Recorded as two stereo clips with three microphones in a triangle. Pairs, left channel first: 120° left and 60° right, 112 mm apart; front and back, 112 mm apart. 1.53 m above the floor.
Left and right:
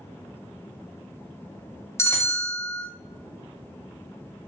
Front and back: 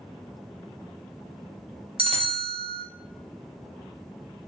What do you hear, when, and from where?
2.0 s a bell: straight behind, 0.5 m